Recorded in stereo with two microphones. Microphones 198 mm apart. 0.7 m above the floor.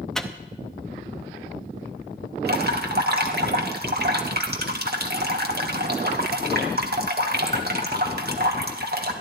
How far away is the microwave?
About 0.7 m.